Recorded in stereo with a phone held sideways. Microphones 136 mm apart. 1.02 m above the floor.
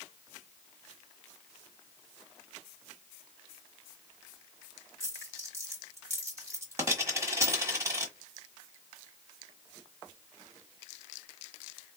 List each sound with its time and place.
5.0 s a dropped coin: 20° right (ahead or behind), 1.3 m